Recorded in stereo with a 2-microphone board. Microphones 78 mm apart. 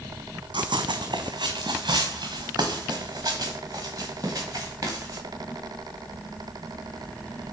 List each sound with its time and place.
0.5 s running footsteps: 80° right, 0.9 m; by 5.2 s 40° right (ahead or behind), 3 m